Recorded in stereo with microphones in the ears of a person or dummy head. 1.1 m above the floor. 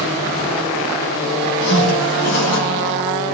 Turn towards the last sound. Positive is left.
turn(degrees=70)  # may be behind; listen again after turning